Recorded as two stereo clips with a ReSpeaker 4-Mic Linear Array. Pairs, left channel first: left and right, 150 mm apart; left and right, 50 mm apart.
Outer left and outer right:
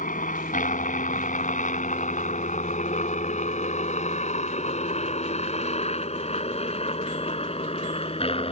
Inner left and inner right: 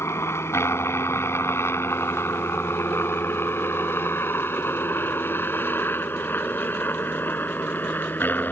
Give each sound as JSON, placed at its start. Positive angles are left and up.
{"t": 0.0, "sound": "a helicopter", "side_deg": 60}